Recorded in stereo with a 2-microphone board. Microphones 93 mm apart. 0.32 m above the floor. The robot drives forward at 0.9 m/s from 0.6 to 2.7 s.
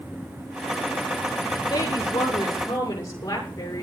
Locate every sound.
1.7 s a woman speaking: 40° left (ahead or behind), 6 m; by 3.8 s 35° left (ahead or behind), 6.5 m